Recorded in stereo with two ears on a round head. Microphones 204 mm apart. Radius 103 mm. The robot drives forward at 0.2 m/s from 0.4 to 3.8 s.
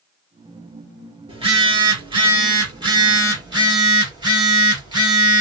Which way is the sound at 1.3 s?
25° right (ahead or behind).